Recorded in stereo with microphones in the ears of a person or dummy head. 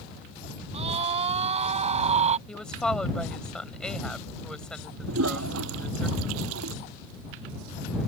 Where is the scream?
40° right (ahead or behind).